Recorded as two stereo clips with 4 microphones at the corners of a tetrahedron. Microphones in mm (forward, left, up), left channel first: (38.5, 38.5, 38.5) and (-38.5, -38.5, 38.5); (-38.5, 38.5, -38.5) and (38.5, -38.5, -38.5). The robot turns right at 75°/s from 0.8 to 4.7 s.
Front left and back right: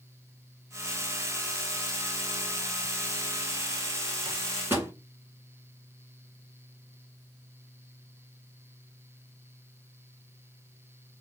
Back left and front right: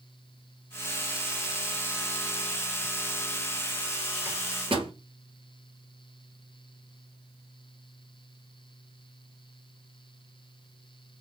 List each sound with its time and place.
4.2 s a microwave: 100° right, 1.7 m; by 4.9 s 70° right, 1.7 m